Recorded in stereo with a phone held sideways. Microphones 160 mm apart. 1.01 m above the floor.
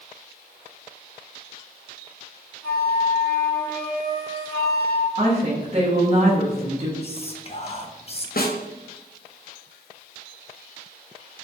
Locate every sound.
2.6 s a flute: 20° left (ahead or behind), 1.3 m
5.2 s a woman speaking: 45° right (ahead or behind), 0.9 m
7.0 s whispering: 40° left (ahead or behind), 0.5 m
8.4 s a snare drum: 70° left (ahead or behind), 0.6 m